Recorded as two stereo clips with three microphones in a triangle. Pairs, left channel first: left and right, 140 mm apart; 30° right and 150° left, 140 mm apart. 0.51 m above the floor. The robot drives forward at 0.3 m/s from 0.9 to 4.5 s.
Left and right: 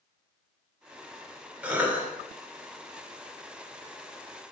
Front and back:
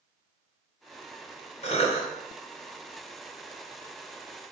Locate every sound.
1.6 s a cough: 15° right, 1.9 m